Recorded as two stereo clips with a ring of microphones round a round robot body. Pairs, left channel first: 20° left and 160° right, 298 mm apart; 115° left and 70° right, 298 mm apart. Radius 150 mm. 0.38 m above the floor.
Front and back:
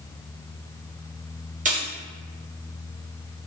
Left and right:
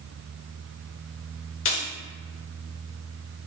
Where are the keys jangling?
145° left, 0.8 m.